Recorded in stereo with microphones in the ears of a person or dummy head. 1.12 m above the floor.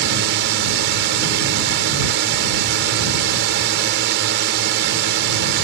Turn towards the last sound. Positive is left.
turn(degrees=-55)  # may be behind; listen again after turning